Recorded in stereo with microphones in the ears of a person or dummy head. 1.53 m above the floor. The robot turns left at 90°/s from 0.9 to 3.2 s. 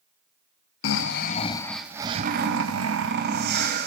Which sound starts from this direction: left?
Snoring, at 0.8 s.